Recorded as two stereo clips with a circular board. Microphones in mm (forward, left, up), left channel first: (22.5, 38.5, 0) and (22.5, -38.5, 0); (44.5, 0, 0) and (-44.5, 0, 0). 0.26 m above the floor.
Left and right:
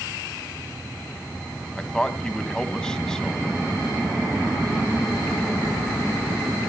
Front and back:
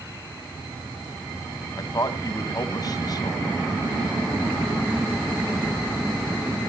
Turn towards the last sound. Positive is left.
turn(degrees=15)